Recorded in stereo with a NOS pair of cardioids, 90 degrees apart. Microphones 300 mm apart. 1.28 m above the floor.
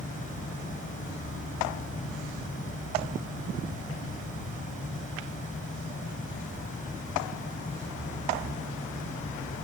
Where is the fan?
25° left.